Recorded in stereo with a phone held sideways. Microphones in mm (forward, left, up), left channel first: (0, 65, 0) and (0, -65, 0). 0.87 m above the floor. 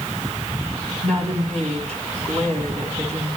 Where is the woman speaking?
55° right (ahead or behind), 7.5 m.